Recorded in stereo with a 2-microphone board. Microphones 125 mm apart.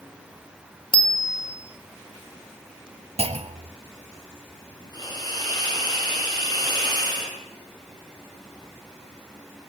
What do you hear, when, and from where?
0.9 s a bicycle bell: 40° left (ahead or behind), 3 m
3.2 s a clunk: 55° right (ahead or behind), 0.9 m
4.9 s a hiss: 30° left (ahead or behind), 8.5 m